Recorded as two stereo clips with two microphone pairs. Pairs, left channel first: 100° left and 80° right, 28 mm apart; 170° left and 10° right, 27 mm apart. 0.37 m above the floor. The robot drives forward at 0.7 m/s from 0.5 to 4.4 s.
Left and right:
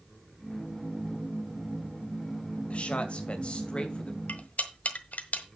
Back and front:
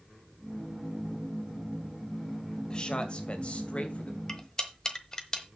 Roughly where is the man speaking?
Behind left.